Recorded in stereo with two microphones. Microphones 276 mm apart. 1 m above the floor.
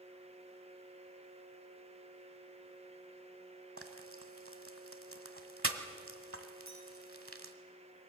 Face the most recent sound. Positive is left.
turn(degrees=-85)